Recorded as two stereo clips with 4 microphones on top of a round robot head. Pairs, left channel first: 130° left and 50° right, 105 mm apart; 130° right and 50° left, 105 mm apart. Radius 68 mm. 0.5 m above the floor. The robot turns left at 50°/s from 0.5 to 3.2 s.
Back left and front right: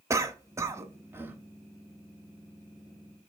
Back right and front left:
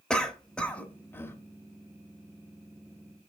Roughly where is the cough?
Ahead right.